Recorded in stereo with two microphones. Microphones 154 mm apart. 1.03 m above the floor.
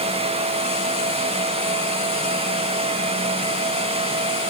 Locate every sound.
Only background noise.